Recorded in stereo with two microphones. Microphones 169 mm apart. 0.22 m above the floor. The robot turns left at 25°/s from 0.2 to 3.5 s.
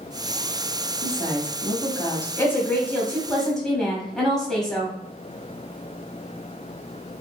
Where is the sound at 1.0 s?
20° left (ahead or behind), 1.0 m; by 2.3 s 15° left (ahead or behind), 1.0 m.